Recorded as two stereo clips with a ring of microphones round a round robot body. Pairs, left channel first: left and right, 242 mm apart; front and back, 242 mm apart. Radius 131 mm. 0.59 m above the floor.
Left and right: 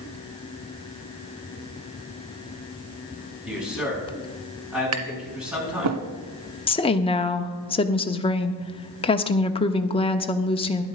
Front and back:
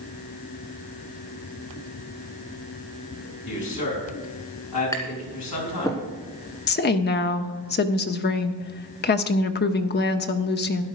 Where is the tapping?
80° right, 1.2 m.